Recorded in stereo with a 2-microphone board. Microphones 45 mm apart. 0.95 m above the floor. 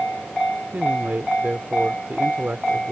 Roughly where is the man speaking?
Right.